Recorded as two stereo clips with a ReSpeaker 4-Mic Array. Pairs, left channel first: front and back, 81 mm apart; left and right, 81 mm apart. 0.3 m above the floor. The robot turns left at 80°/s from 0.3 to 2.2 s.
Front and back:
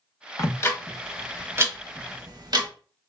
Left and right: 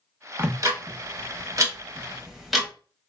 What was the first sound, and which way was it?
Ticking, 35° right.